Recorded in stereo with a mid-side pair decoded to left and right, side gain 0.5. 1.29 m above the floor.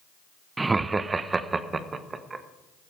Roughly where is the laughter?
Ahead right.